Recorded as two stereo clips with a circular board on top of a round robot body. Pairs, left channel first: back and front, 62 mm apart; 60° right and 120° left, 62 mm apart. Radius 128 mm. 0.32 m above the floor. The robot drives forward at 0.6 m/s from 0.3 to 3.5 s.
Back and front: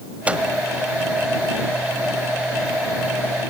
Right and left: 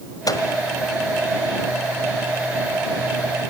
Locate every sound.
0.3 s a microwave: 70° right, 1.6 m